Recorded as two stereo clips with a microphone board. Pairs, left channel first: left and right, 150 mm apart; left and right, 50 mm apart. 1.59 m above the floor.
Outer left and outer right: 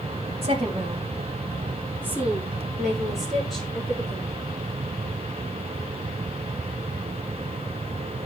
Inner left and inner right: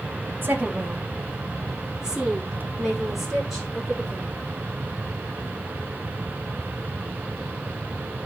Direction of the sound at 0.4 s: 40° right (ahead or behind).